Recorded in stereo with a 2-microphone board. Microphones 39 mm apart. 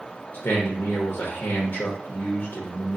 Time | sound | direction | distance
0.3 | a man speaking | 65° left (ahead or behind) | 0.8 m